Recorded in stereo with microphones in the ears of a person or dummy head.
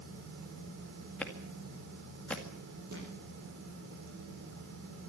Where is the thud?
55° right (ahead or behind), 5 m.